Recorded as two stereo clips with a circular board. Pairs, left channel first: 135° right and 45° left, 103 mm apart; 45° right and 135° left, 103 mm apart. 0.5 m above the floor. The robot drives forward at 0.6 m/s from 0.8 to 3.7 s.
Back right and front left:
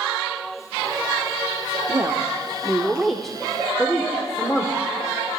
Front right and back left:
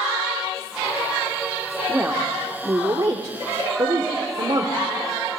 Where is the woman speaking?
70° left, 1.1 m; by 4.7 s 145° left, 1.4 m.